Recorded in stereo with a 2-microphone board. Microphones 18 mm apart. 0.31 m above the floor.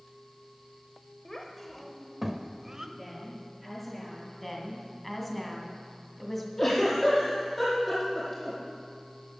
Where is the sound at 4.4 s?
5° left (ahead or behind), 2.5 m.